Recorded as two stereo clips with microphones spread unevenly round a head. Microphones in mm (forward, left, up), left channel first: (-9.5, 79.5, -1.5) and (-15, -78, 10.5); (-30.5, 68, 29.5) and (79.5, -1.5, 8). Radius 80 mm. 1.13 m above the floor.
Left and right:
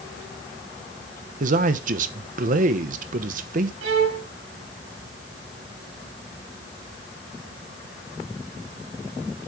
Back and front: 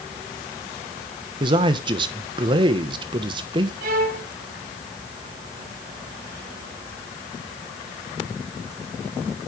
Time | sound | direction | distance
1.4 | a man speaking | 65° right | 1.0 m
3.8 | a violin | 65° right | 2.5 m